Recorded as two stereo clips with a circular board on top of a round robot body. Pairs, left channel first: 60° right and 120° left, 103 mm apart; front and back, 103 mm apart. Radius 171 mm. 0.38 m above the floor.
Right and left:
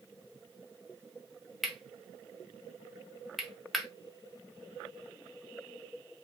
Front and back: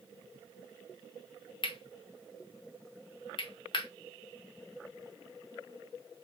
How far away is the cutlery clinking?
About 1.3 m.